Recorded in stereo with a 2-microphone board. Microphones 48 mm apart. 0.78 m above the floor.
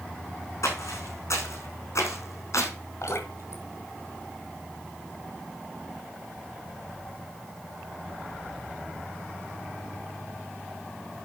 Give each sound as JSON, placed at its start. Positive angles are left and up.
{"t": 0.6, "sound": "footsteps", "side_deg": 75, "distance_m": 3.5}
{"t": 3.0, "sound": "dripping", "side_deg": 75, "distance_m": 2.5}